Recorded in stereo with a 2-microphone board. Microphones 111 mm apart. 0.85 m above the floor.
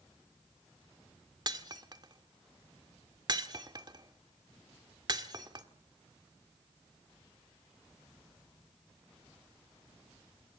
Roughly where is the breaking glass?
Right.